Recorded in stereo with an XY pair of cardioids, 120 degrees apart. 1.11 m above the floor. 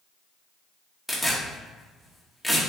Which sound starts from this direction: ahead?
Tearing paper, at 1.1 s.